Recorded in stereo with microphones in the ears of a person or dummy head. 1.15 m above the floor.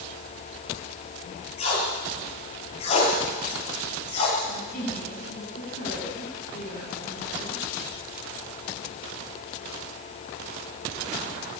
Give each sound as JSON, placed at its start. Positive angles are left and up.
{"t": 1.6, "sound": "tape being pulled", "side_deg": 35, "distance_m": 8.5}
{"t": 4.5, "sound": "a woman speaking", "side_deg": 50, "distance_m": 8.5}